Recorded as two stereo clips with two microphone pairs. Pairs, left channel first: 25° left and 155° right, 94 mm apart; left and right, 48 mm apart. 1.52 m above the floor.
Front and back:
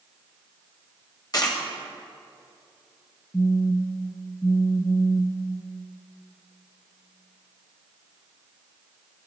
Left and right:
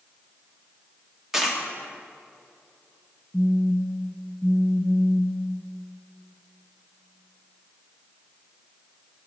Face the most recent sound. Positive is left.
turn(degrees=-25)